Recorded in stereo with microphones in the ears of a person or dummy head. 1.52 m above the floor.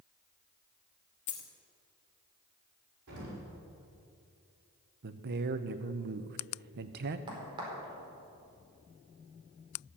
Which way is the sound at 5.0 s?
50° right (ahead or behind).